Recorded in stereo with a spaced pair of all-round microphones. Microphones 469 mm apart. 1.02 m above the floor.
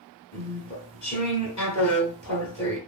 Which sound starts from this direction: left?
Chewing, at 0.3 s.